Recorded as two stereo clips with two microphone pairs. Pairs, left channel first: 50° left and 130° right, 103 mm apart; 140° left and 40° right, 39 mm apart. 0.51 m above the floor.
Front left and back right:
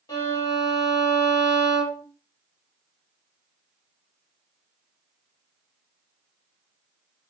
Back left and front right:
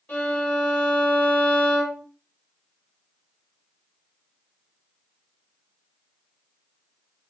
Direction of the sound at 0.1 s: 100° left.